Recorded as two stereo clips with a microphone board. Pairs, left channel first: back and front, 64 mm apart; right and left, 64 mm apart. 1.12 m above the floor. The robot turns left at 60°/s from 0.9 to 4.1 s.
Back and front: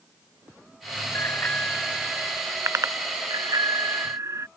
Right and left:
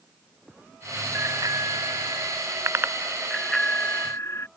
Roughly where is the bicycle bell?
Behind left.